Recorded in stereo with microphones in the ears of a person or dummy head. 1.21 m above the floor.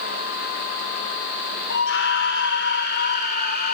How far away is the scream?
About 4.5 m.